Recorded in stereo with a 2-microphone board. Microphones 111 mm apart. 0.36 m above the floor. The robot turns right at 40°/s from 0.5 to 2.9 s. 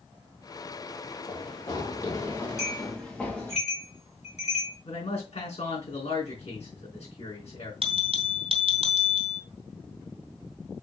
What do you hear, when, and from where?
1.3 s running footsteps: 50° left (ahead or behind), 3.5 m; by 3.6 s 15° left (ahead or behind), 3 m
2.6 s a bell: 75° left (ahead or behind), 4 m; by 4.8 s 80° left, 4 m
4.8 s a man speaking: 75° left (ahead or behind), 4.5 m
7.8 s a bell: 60° right (ahead or behind), 2 m